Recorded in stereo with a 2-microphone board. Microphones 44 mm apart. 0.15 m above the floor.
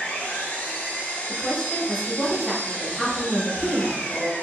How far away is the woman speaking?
About 1.8 m.